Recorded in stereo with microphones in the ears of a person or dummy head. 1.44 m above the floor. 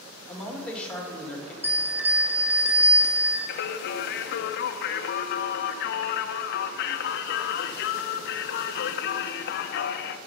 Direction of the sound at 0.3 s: 5° left (ahead or behind).